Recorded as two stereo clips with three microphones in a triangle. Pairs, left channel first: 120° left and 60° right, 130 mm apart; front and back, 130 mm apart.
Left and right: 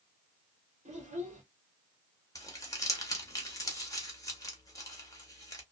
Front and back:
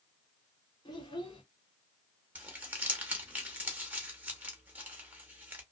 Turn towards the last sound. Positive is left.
turn(degrees=120)